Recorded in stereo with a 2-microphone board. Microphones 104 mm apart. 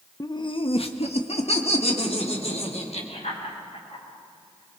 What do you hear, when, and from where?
0.2 s laughter: 30° left (ahead or behind), 0.9 m; by 4.8 s 70° left (ahead or behind), 7.5 m